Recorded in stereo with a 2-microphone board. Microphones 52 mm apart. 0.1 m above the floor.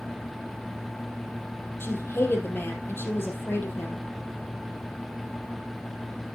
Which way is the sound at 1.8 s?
45° left (ahead or behind).